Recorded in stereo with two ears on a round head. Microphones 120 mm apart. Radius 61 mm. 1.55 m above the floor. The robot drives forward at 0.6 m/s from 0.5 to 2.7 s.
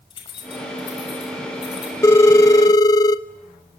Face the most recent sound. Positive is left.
turn(degrees=25)  # may be behind; listen again after turning